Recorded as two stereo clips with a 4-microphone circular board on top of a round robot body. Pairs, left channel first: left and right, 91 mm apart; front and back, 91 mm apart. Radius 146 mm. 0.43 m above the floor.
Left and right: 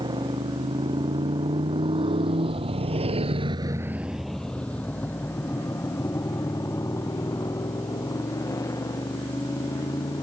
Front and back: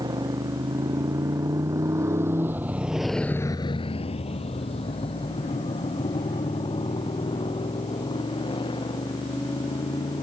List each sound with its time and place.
0.0 s a motorcycle: 130° right; by 10.2 s 35° left